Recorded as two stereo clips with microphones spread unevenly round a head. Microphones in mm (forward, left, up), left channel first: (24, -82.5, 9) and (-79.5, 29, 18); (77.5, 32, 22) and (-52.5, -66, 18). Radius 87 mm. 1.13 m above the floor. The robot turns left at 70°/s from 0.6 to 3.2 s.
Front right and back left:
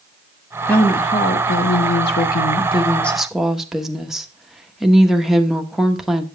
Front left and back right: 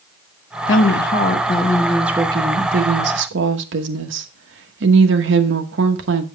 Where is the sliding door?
No sliding door in this recording.